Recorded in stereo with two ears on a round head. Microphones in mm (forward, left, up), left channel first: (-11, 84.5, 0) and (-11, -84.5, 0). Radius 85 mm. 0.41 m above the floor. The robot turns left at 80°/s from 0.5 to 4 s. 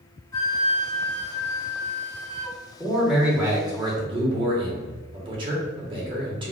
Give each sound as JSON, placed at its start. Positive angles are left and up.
{"t": 0.3, "sound": "a flute", "azimuth_deg": 160, "distance_m": 1.3}
{"t": 2.8, "sound": "a man speaking", "side_deg": 10, "distance_m": 1.2}